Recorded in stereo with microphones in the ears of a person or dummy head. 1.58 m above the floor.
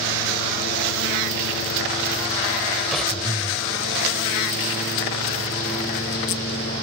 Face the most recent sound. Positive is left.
turn(degrees=0)  # may be behind; listen again after turning